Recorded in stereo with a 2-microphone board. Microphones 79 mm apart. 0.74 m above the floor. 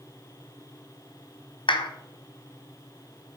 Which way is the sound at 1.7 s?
75° left (ahead or behind).